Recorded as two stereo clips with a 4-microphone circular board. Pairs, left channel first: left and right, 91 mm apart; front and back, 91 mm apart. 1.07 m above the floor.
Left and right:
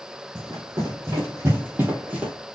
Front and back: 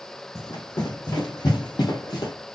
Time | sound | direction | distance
0.3 | running footsteps | 45° right | 3 m